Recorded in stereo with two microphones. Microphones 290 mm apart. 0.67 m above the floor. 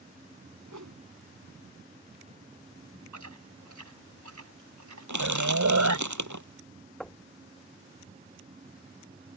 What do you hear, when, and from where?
0.7 s a whoosh: 85° right
3.1 s chewing: 75° right (ahead or behind)
5.1 s crushing: 80° right
7.0 s knocking: centre (ahead or behind)